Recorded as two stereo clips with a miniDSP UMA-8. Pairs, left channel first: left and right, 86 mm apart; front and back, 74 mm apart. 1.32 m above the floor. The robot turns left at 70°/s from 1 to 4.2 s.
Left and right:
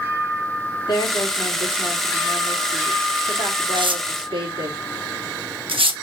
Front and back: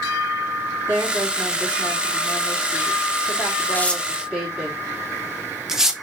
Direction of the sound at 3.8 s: 65° right.